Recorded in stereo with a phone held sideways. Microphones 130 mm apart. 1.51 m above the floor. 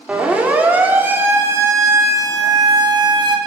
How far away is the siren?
About 4 m.